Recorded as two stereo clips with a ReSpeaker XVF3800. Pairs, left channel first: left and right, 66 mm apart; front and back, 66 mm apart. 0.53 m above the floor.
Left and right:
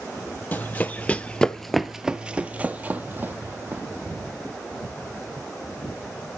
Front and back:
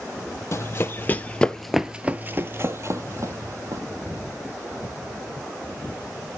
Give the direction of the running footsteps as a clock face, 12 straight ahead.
11 o'clock.